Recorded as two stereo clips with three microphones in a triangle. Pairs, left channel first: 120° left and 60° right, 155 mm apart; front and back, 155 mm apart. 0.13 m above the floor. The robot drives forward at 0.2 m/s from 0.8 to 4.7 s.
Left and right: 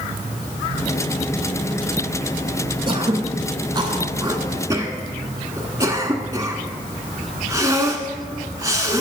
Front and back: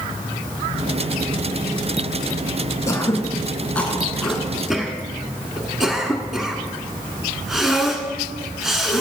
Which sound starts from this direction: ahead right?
Throat clearing, at 2.9 s.